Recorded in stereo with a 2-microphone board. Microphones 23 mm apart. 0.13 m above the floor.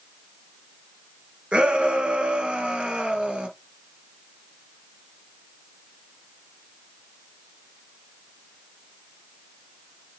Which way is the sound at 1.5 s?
50° right (ahead or behind).